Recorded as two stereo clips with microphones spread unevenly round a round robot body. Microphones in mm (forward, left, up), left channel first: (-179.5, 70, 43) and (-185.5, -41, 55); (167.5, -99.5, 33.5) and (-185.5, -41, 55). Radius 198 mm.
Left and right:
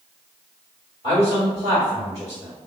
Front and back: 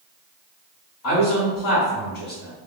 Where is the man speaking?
10° right, 1.4 m.